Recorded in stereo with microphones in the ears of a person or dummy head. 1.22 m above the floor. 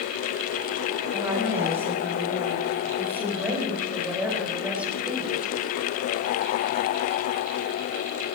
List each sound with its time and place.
1.1 s a woman speaking: 10° right (ahead or behind), 6.5 m; by 5.5 s 5° right (ahead or behind), 4 m